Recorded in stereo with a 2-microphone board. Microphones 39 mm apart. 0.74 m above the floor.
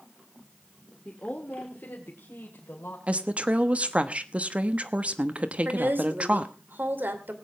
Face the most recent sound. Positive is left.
turn(degrees=-55)  # may be behind; listen again after turning